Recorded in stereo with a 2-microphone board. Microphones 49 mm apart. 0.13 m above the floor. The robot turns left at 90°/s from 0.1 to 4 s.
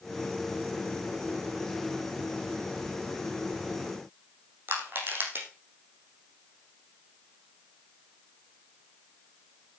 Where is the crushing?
45° right (ahead or behind), 5.5 m.